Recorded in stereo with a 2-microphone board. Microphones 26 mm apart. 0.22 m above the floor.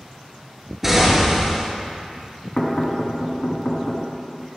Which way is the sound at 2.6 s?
25° left (ahead or behind).